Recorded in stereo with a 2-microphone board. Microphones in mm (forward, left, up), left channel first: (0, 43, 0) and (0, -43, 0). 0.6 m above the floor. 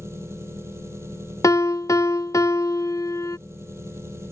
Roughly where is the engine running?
Right.